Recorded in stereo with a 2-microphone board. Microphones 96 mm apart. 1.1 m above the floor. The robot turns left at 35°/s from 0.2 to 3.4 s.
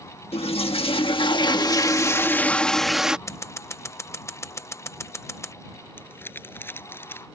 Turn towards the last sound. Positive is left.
turn(degrees=20)  # may be behind; listen again after turning